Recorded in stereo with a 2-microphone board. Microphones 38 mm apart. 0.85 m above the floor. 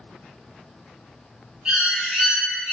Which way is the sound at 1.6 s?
20° right (ahead or behind).